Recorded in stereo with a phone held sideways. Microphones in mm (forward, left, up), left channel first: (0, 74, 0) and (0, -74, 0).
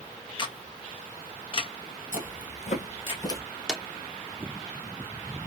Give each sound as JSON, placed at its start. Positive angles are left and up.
{"t": 0.4, "sound": "a camera shutter", "side_deg": 35, "distance_m": 0.7}
{"t": 2.1, "sound": "footsteps", "side_deg": 60, "distance_m": 1.5}
{"t": 3.7, "sound": "a drawer", "side_deg": -5, "distance_m": 0.5}